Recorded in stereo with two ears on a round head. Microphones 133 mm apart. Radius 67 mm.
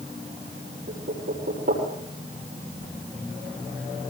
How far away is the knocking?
About 8 m.